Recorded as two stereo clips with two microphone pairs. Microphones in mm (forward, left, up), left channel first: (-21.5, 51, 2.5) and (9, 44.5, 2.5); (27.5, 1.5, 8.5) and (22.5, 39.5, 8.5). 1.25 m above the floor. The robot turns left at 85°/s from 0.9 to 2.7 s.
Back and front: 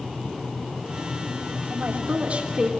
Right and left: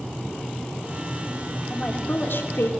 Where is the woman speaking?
5° right, 3 m; by 2.7 s 90° right, 3 m.